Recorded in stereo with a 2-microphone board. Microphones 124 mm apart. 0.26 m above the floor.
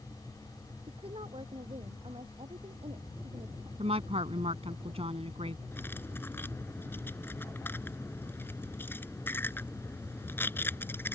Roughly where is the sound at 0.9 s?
Right.